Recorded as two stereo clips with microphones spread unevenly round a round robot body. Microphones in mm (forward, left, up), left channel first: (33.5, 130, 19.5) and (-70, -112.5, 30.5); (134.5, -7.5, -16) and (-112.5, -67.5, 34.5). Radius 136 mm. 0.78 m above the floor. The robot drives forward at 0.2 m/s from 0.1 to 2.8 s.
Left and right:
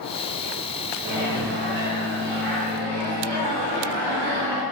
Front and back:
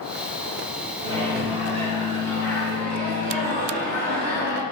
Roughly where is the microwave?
Right.